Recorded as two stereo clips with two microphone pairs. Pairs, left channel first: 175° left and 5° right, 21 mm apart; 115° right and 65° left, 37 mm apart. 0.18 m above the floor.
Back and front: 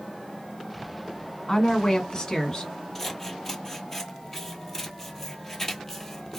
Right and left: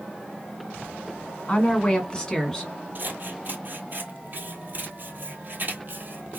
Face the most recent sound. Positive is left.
turn(degrees=100)